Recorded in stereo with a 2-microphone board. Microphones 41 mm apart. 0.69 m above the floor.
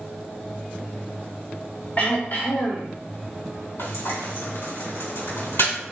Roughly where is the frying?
Left.